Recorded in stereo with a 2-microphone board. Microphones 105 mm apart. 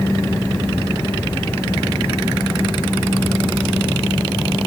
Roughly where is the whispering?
No whispering in this recording.